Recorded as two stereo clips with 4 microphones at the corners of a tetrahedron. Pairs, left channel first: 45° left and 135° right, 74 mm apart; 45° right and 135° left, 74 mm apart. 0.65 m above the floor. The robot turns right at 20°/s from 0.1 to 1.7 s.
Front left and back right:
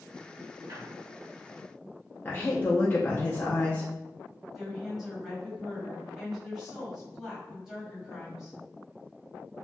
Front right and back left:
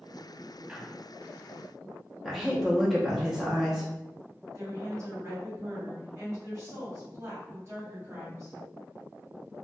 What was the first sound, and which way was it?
A squeak, 155° right.